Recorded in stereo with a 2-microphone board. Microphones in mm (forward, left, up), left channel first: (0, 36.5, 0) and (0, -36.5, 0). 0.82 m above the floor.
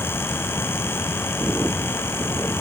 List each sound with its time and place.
Only background noise.